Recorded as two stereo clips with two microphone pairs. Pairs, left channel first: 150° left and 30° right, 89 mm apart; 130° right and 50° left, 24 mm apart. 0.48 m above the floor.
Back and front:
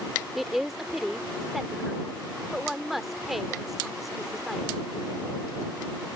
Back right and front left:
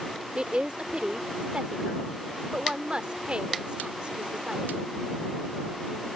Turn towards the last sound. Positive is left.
turn(degrees=55)